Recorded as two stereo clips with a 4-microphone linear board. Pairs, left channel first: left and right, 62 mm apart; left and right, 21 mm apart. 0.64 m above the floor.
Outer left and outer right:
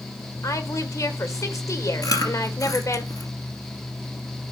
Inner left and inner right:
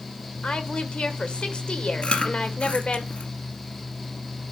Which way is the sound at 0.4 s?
60° left (ahead or behind).